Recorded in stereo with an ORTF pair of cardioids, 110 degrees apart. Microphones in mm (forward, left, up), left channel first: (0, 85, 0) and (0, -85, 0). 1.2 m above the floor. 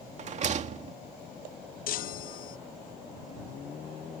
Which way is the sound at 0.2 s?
45° right.